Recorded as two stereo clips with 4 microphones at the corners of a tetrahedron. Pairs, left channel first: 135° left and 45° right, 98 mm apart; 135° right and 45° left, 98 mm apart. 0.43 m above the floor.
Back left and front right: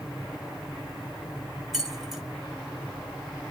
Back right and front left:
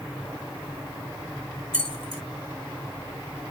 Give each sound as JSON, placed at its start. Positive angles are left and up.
{"t": 1.7, "sound": "keys jangling", "azimuth_deg": 40, "distance_m": 1.4}